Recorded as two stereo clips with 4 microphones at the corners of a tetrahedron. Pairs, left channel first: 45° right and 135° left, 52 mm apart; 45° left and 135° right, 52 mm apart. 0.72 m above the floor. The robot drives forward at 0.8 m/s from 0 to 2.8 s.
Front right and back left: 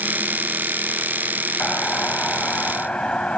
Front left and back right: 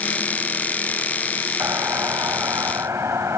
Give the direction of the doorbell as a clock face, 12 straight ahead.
4 o'clock.